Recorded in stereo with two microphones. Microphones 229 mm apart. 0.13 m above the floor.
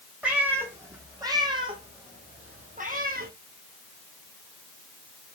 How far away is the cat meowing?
About 2.5 m.